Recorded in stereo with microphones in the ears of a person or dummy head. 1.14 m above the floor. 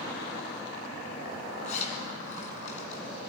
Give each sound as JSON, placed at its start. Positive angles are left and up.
{"t": 1.6, "sound": "a zipper", "side_deg": 45, "distance_m": 3.5}